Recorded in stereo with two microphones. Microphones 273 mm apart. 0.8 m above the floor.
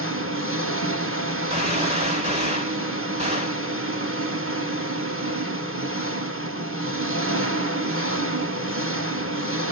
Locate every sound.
0.0 s an engine running: 50° right (ahead or behind), 0.7 m
1.5 s a gunshot: 25° right (ahead or behind), 1.7 m